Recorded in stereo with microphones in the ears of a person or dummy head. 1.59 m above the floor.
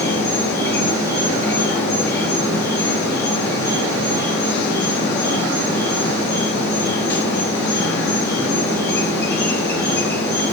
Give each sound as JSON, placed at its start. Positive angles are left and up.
{"t": 0.0, "sound": "an insect", "side_deg": 15, "distance_m": 2.5}